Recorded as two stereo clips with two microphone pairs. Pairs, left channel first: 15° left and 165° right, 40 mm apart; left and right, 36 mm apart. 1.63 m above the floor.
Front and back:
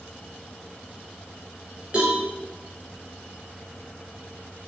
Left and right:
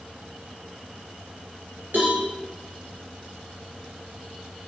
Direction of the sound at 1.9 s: 100° right.